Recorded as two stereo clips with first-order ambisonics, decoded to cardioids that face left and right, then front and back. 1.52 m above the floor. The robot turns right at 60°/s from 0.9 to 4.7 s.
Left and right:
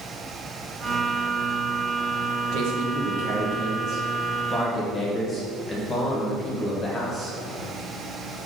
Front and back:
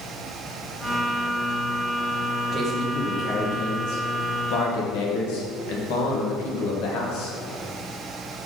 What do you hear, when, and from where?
2.5 s a man speaking: 120° right, 1.9 m; by 7.3 s 15° left, 1.9 m